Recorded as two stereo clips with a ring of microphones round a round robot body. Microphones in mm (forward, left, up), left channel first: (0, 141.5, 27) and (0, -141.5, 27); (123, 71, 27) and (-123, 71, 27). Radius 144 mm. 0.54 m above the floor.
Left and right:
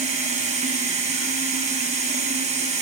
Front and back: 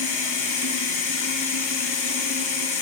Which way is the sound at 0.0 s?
20° right.